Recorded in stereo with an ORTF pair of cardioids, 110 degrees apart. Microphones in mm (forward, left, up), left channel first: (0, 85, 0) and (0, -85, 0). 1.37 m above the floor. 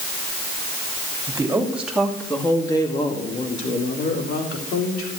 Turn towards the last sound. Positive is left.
turn(degrees=80)